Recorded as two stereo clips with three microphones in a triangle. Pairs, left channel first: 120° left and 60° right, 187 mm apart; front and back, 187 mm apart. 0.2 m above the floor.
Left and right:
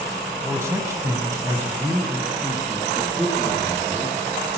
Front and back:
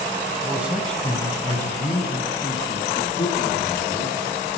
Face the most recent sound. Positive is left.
turn(degrees=20)